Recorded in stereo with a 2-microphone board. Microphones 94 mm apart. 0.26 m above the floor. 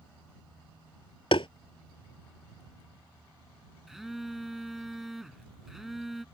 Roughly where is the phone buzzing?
Centre.